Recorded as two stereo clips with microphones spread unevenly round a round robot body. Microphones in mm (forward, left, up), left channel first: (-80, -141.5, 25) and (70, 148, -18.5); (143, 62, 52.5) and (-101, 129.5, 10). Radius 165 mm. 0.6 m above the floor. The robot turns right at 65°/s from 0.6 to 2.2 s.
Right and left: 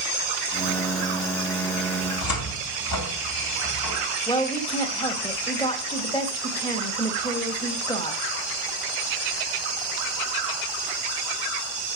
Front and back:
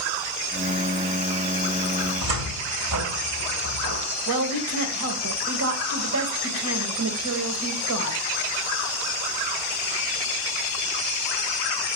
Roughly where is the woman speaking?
Behind.